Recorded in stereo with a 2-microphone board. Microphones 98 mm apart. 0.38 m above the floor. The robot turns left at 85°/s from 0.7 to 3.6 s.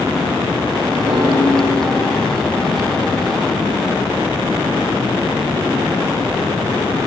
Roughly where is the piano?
Right.